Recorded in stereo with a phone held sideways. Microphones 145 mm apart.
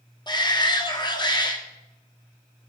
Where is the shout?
30° left (ahead or behind), 2 m.